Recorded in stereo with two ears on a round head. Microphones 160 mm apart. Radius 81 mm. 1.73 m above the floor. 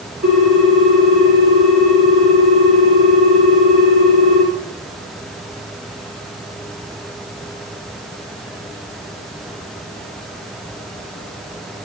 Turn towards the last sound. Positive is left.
turn(degrees=-70)  # may be behind; listen again after turning